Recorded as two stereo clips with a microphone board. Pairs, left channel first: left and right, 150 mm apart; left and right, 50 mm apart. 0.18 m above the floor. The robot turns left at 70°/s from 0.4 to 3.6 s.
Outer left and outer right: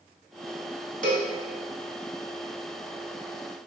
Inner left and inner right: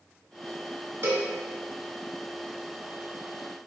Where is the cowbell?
60° right (ahead or behind), 0.6 m; by 1.3 s 70° right (ahead or behind), 0.6 m.